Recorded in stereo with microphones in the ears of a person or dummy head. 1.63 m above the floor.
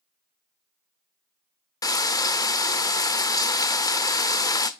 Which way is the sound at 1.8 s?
25° left (ahead or behind).